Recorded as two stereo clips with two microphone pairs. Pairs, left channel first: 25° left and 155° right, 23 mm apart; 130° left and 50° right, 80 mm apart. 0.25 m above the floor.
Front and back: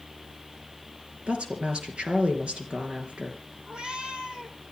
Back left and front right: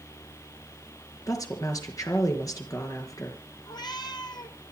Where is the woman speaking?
170° left, 4.5 m.